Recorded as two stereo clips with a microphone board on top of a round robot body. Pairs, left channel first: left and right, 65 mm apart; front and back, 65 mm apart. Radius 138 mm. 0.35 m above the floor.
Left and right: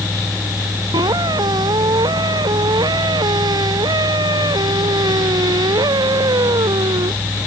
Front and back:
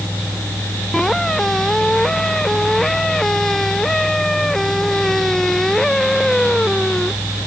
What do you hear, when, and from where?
0.9 s a squeak: 85° right